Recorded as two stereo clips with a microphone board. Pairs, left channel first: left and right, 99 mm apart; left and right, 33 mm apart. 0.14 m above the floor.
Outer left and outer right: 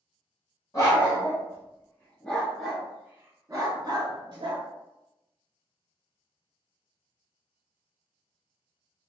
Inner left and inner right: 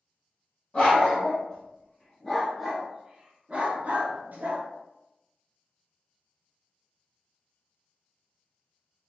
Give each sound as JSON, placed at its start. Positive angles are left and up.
{"t": 0.7, "sound": "a dog barking", "side_deg": 35, "distance_m": 1.6}